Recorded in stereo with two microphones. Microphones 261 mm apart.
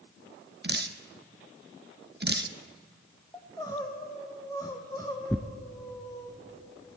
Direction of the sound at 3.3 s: 15° left (ahead or behind).